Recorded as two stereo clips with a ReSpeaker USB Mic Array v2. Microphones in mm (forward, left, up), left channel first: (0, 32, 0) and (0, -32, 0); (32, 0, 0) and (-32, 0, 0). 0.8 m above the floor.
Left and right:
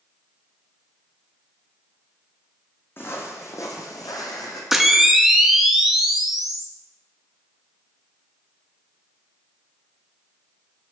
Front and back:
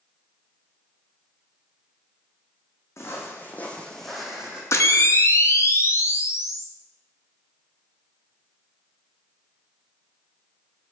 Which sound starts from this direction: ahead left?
Footsteps, at 3.0 s.